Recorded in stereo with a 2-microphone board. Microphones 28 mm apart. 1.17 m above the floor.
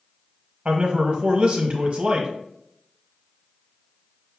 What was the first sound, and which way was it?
A man speaking, 40° right (ahead or behind).